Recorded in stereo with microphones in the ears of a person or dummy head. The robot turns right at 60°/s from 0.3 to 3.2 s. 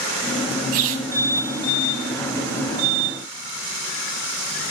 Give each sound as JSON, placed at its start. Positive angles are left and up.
{"t": 0.7, "sound": "a squeak", "side_deg": -45, "distance_m": 0.8}